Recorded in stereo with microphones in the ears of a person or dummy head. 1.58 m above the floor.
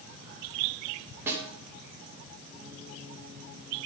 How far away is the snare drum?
About 1.9 m.